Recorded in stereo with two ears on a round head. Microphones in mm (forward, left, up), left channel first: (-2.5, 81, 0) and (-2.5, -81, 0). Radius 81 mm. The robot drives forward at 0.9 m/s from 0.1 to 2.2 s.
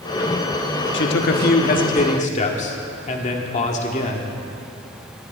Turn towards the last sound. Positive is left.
turn(degrees=40)  # may be behind; listen again after turning